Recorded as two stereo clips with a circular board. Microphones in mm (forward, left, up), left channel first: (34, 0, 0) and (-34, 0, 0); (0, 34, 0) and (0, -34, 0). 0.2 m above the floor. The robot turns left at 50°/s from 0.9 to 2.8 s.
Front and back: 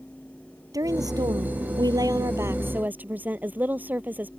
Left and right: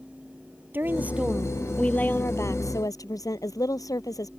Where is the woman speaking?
150° right; by 4.3 s 115° left.